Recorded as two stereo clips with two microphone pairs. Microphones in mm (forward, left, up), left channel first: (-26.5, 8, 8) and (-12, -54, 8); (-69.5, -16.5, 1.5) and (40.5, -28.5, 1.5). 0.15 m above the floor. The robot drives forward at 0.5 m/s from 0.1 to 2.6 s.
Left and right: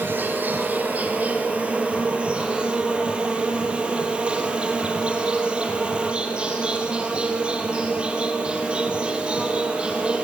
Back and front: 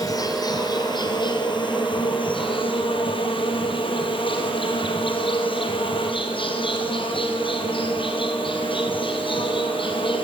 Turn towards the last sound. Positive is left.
turn(degrees=-150)